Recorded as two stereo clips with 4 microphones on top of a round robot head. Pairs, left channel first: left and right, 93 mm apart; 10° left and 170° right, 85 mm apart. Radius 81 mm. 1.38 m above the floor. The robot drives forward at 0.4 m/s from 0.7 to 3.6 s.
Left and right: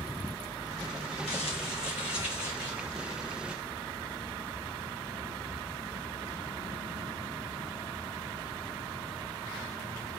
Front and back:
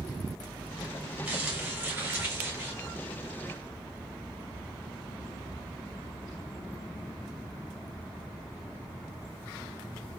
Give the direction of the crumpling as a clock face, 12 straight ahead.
8 o'clock.